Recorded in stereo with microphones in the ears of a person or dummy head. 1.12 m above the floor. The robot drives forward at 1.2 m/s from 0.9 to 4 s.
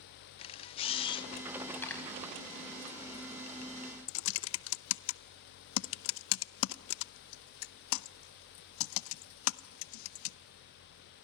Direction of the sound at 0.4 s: 25° left (ahead or behind).